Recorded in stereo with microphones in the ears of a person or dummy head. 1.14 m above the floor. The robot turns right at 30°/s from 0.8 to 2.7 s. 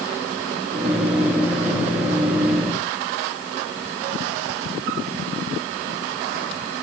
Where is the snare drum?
I don't hear a snare drum.